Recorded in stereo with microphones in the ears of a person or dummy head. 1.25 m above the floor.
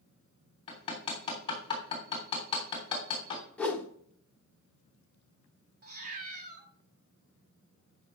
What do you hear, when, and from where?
0.7 s hammering: 25° left (ahead or behind), 3 m
3.6 s a whoosh: 5° left (ahead or behind), 1.2 m
5.8 s a cat meowing: 45° right (ahead or behind), 1.4 m